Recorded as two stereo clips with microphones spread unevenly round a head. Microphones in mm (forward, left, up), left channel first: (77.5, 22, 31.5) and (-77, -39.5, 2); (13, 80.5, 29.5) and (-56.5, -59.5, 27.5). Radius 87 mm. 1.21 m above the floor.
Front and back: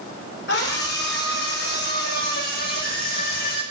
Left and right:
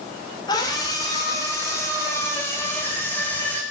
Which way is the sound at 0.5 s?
5° right.